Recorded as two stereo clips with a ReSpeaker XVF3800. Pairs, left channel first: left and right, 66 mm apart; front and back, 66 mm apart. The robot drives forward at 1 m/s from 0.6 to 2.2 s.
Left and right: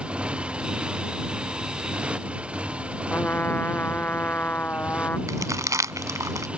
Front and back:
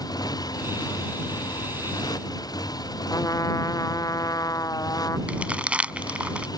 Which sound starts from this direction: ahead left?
A trumpet, at 3.1 s.